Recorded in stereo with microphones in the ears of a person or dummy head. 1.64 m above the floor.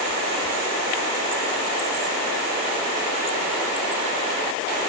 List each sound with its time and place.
Only background noise.